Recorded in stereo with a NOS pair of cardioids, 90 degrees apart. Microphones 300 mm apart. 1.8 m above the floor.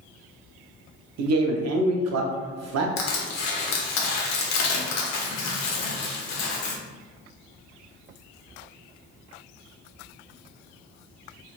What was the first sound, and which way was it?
A man speaking, 60° right.